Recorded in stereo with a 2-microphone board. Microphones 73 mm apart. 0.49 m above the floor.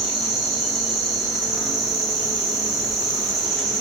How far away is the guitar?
No guitar in this recording.